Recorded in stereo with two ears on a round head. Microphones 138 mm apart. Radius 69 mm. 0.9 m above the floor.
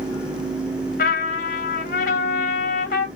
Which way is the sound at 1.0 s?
65° left (ahead or behind).